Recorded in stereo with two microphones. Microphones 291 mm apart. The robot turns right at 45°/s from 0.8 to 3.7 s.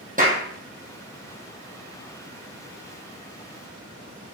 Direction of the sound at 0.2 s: 30° right (ahead or behind).